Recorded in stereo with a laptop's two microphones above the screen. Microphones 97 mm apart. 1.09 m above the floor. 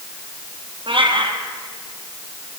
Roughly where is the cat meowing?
Right.